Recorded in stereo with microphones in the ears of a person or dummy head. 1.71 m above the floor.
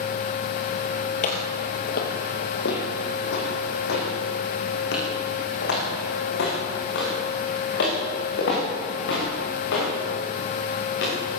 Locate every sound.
1.2 s footsteps: 50° left (ahead or behind), 2.5 m; by 11.1 s 80° left, 13.5 m